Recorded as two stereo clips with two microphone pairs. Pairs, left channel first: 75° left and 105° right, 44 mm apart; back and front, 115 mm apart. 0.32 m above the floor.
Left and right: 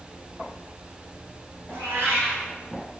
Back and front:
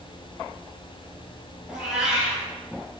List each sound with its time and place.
1.7 s a cat meowing: 90° right, 2 m